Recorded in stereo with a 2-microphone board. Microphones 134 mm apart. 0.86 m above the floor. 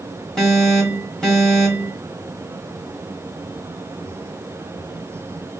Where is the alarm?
5° left (ahead or behind), 1.6 m.